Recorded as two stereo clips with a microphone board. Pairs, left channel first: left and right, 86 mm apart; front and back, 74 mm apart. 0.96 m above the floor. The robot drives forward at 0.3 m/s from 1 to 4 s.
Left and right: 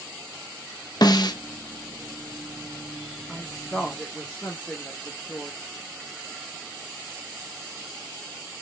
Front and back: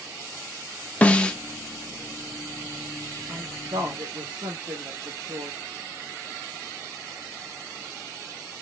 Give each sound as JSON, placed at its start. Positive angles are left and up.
{"t": 1.0, "sound": "a snare drum", "azimuth_deg": 65, "distance_m": 0.6}
{"t": 3.3, "sound": "a woman speaking", "azimuth_deg": 170, "distance_m": 0.7}